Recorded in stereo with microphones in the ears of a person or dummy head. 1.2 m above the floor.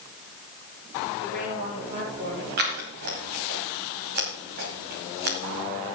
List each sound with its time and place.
1.2 s a woman speaking: 45° right (ahead or behind), 5.5 m; by 2.5 s 40° right (ahead or behind), 5 m
2.6 s scissors: 50° right (ahead or behind), 1.9 m